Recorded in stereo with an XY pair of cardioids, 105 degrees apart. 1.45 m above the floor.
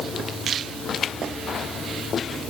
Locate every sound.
Only background noise.